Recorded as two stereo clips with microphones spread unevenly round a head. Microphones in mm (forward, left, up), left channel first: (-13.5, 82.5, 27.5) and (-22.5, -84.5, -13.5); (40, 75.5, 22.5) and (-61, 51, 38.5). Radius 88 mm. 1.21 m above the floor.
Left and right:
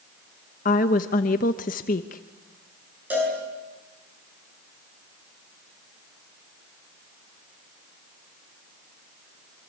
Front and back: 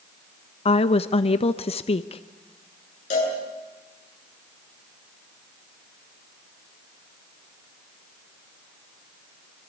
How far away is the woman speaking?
About 0.8 m.